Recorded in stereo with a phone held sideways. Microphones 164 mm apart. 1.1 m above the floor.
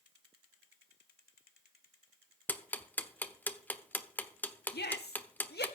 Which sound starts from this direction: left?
A shout, at 4.7 s.